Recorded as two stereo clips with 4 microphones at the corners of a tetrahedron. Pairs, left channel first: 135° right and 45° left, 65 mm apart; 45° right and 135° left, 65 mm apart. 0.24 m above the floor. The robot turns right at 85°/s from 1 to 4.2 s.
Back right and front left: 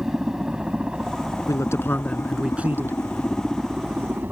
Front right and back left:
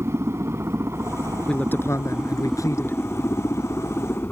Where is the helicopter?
125° left; by 4.3 s straight ahead.